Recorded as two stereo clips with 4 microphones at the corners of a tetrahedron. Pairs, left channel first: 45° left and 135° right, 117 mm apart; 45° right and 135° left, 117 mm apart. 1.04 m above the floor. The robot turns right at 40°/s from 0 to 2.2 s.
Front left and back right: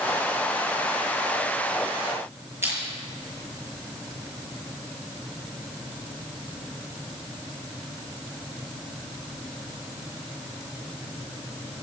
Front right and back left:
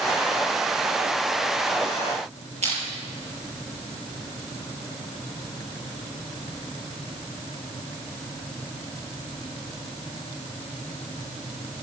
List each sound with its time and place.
2.6 s crushing: 155° left, 7 m